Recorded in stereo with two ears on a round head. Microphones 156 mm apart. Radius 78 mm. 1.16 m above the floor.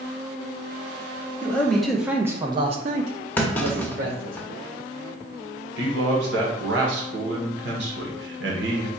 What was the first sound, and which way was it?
A man speaking, 10° left (ahead or behind).